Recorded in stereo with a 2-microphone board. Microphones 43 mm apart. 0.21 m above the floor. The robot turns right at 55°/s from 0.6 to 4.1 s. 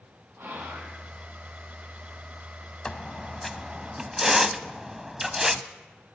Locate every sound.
0.4 s whispering: 55° right (ahead or behind), 7.5 m; by 1.0 s 75° right (ahead or behind), 7.5 m
2.9 s a squeak: 15° left (ahead or behind), 0.6 m; by 5.6 s 10° right (ahead or behind), 0.6 m